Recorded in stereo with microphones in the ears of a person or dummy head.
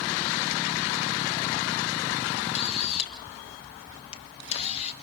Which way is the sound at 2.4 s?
30° left (ahead or behind).